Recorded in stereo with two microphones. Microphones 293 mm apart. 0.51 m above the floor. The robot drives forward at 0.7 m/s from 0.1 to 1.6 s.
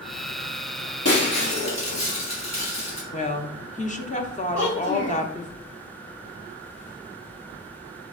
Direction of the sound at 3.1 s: 25° left (ahead or behind).